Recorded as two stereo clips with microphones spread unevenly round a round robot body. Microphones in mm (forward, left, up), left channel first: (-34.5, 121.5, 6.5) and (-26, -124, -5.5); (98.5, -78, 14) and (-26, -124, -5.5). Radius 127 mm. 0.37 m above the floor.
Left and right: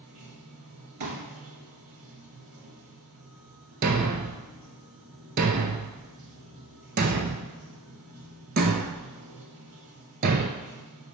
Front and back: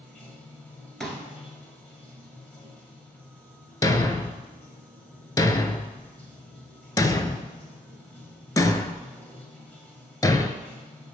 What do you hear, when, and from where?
0.0 s running water: 60° right, 1.3 m
1.0 s a pop: 65° right, 1.4 m
3.8 s a thud: 35° right, 0.5 m